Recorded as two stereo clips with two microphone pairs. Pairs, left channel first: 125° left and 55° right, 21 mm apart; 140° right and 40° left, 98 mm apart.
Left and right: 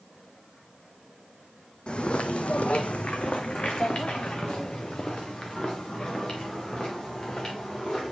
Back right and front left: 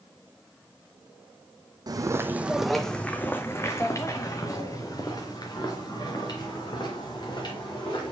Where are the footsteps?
80° left, 0.6 m; by 8.1 s straight behind, 3 m.